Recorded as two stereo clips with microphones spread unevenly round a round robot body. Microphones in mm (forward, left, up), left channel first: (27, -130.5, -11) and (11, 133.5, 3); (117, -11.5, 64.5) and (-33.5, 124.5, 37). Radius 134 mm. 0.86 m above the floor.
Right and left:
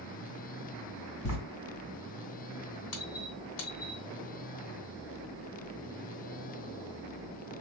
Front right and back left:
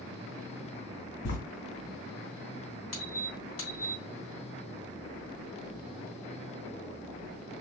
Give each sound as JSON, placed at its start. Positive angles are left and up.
{"t": 1.2, "sound": "writing", "azimuth_deg": -80, "distance_m": 1.8}
{"t": 2.9, "sound": "a squeak", "azimuth_deg": -85, "distance_m": 2.5}